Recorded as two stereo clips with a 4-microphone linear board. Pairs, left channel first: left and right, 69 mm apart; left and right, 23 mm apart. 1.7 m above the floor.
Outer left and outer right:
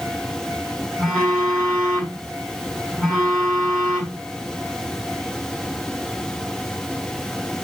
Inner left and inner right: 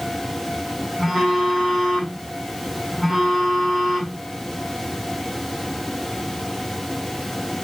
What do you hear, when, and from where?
1.0 s a phone buzzing: 5° left (ahead or behind), 2.0 m